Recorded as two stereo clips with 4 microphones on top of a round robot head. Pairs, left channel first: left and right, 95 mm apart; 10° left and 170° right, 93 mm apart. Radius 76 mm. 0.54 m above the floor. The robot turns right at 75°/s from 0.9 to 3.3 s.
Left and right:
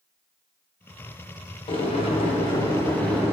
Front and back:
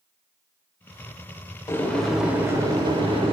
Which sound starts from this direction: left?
Boiling, at 1.7 s.